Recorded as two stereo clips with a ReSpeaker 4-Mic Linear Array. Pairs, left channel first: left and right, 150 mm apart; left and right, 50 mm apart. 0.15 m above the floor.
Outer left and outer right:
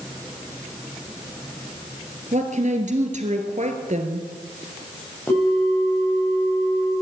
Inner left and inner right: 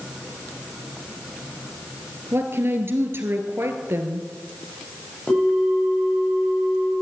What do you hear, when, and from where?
2.3 s a woman speaking: 50° right (ahead or behind), 2.5 m
5.3 s a bell: 15° left (ahead or behind), 9 m